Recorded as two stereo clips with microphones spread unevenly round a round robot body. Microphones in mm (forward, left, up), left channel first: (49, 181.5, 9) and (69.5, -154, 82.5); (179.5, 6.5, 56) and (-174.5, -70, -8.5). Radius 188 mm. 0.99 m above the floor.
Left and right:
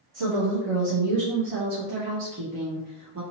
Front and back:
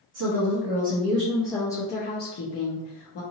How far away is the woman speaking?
About 1.1 m.